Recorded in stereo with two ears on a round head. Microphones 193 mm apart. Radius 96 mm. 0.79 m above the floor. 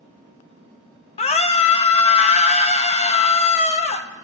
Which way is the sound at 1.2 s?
30° left (ahead or behind).